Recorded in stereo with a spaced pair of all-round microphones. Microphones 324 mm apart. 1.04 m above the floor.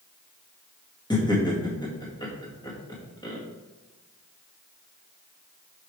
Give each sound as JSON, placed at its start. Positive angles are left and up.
{"t": 1.1, "sound": "laughter", "side_deg": 15, "distance_m": 1.8}